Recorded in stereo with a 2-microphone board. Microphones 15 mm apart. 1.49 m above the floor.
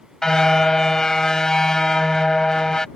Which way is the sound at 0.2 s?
40° left (ahead or behind).